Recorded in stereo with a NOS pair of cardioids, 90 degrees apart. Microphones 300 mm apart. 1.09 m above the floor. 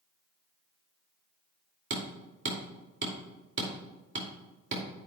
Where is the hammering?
40° right, 2.5 m.